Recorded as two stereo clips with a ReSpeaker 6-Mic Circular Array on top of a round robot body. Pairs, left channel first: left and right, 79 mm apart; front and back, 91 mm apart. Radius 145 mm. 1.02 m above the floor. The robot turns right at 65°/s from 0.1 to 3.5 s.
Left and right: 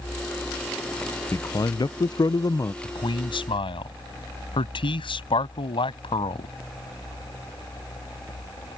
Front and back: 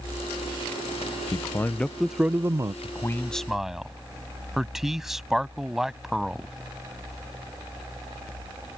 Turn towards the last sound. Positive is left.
turn(degrees=95)